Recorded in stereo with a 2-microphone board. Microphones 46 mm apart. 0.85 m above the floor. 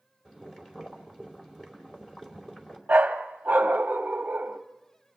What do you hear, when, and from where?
0.2 s boiling: 10° left (ahead or behind), 2.5 m
2.9 s a dog barking: 35° right (ahead or behind), 1.0 m